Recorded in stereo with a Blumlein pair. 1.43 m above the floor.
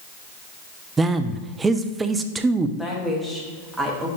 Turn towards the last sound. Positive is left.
turn(degrees=-5)